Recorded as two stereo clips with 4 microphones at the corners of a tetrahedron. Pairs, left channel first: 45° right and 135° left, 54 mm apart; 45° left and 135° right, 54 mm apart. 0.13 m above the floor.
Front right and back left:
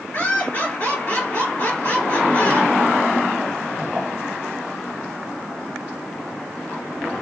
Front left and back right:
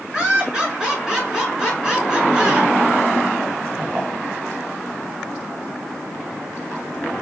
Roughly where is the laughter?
Ahead right.